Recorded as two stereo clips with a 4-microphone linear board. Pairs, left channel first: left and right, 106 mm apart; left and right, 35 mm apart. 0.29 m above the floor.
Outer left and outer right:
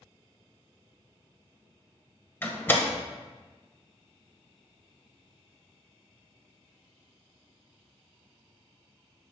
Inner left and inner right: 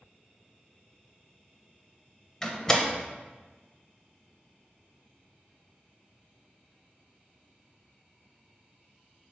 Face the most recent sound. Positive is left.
turn(degrees=20)  # may be behind; listen again after turning